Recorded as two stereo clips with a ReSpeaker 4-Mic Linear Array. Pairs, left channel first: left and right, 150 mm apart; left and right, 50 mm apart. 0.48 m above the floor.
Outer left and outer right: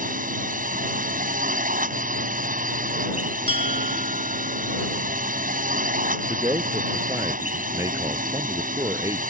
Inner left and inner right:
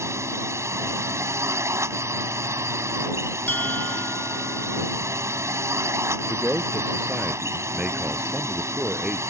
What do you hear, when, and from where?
0.0 s a drone: 65° right (ahead or behind)
3.5 s a bell: 35° left (ahead or behind)
6.3 s a man speaking: 25° right (ahead or behind)